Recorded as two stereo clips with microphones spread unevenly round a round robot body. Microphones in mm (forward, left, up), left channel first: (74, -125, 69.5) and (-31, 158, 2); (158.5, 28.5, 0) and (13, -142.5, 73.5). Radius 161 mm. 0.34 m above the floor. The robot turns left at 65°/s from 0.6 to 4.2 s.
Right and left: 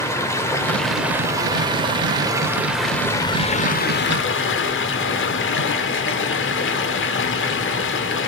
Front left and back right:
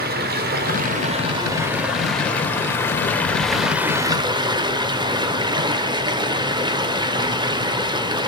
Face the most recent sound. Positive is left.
turn(degrees=-40)